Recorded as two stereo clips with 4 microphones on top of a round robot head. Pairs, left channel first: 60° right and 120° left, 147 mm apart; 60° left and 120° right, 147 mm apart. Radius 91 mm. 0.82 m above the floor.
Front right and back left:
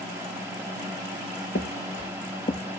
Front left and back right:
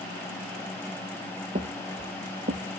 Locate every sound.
1.6 s footsteps: 80° right, 1.6 m; by 2.6 s 100° right, 2.0 m